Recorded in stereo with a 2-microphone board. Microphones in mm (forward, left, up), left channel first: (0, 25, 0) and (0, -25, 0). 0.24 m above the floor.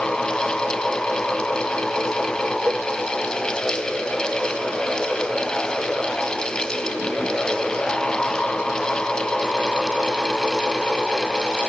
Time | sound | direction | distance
2.7 | a cowbell | 35° right (ahead or behind) | ?